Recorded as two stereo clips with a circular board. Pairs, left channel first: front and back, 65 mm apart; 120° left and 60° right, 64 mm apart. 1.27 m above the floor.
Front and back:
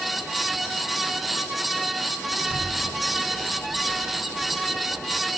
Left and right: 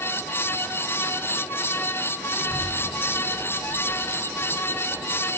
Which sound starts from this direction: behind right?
A child speaking, at 2.3 s.